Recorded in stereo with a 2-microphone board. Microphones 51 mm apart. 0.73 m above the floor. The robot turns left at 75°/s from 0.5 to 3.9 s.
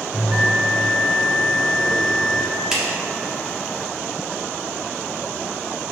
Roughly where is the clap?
Centre.